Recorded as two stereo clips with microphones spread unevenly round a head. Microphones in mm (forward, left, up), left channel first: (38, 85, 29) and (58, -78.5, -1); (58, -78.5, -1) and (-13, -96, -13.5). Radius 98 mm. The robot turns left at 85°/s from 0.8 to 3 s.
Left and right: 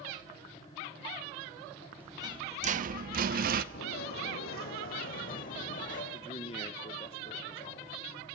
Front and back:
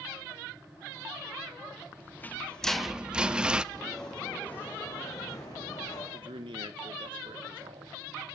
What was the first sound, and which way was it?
A rattle, 5° left.